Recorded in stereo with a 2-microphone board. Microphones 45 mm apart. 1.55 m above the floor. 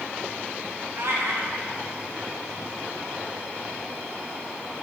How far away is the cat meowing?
About 3.5 m.